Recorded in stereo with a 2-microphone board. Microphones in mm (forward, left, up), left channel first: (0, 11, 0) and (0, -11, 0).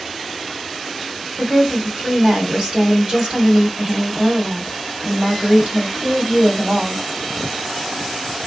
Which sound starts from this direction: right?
A woman speaking, at 1.4 s.